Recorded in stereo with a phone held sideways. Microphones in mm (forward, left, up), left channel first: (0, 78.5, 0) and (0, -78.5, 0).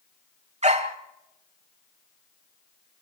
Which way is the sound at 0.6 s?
45° right (ahead or behind).